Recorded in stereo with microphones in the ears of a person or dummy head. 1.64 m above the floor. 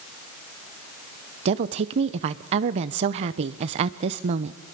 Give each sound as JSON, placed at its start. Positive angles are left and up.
{"t": 1.4, "sound": "a woman speaking", "side_deg": -35, "distance_m": 0.7}